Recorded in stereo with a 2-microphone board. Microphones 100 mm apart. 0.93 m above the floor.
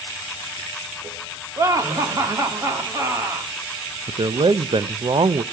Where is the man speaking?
55° right (ahead or behind), 0.5 m.